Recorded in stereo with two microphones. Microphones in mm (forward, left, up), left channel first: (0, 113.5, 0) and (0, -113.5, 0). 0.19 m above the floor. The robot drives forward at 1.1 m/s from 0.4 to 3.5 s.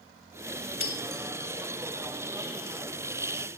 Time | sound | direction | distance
0.8 | breaking glass | 65° left (ahead or behind) | 1.2 m